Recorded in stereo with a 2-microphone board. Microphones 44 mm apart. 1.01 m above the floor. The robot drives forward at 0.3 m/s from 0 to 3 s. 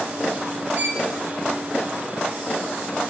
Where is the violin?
35° right (ahead or behind), 2 m.